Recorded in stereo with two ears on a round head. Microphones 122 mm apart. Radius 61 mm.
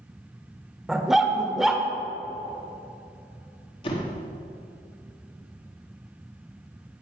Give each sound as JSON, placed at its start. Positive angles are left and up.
{"t": 0.9, "sound": "a dog barking", "side_deg": 0, "distance_m": 0.9}
{"t": 3.8, "sound": "a door slam", "side_deg": 40, "distance_m": 1.5}